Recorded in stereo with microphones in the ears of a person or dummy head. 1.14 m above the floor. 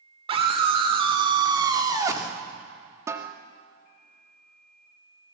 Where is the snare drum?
15° right (ahead or behind), 1.7 m.